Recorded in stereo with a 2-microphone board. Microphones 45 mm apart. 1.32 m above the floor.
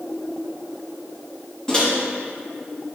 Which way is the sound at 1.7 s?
15° left (ahead or behind).